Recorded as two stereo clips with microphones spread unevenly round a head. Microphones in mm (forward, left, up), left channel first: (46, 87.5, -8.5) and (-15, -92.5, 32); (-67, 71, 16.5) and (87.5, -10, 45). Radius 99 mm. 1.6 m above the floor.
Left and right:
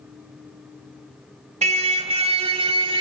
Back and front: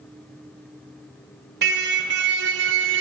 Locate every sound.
1.6 s a car horn: 60° right, 3 m; by 3.0 s 50° right, 3.5 m